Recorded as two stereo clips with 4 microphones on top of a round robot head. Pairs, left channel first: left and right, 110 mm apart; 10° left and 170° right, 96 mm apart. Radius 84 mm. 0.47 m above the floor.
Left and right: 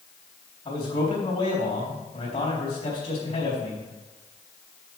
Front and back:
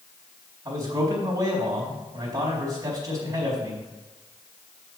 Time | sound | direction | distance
0.7 | a man speaking | 140° left | 4 m